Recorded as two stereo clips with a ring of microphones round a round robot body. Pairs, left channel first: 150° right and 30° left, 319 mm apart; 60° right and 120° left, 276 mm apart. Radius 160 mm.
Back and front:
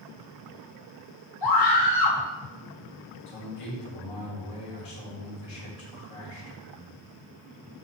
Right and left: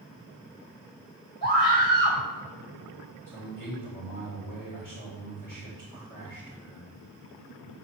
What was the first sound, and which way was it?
A scream, 135° right.